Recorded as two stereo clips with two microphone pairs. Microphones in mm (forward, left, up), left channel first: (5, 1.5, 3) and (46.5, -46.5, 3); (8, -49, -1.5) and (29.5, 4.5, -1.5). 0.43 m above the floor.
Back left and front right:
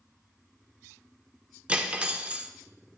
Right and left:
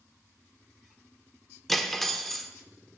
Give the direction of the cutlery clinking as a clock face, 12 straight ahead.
1 o'clock.